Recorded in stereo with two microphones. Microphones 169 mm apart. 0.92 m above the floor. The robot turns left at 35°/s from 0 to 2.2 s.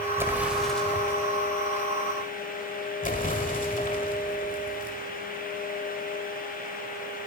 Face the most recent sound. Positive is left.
turn(degrees=50)  # may be behind; listen again after turning